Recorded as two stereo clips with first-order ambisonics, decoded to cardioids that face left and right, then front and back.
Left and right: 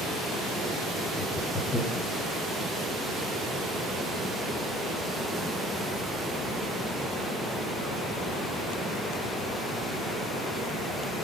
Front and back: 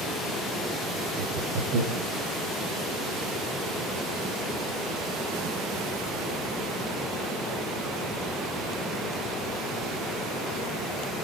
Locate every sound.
1.2 s laughter: 160° left, 4 m